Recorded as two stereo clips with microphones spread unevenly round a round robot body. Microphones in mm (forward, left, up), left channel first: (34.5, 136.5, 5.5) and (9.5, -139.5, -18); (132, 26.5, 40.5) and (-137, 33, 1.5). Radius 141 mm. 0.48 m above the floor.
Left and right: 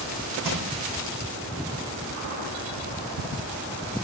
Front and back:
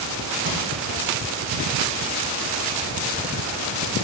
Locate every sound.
0.4 s crushing: 130° right, 5 m